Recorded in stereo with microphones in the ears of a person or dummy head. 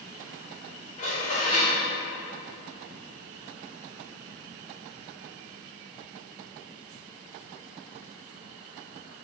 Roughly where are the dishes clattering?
Left.